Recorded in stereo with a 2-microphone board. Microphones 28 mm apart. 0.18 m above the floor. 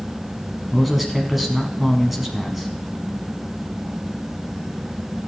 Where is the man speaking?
5° right (ahead or behind), 1.3 m.